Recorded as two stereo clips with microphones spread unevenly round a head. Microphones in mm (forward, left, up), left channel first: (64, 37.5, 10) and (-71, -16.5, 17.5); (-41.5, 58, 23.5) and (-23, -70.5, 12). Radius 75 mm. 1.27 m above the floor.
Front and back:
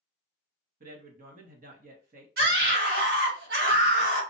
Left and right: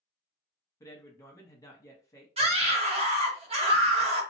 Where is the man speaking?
165° left, 1.1 m.